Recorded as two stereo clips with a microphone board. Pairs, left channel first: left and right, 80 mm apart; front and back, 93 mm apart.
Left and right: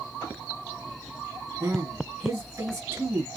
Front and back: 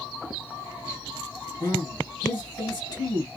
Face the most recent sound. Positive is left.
turn(degrees=-45)